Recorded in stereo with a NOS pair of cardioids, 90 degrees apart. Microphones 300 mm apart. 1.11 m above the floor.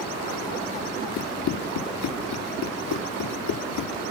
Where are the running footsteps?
70° left.